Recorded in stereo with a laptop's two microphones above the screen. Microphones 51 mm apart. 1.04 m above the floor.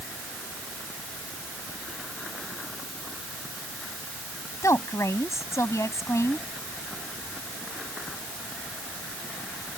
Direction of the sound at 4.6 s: 75° left (ahead or behind).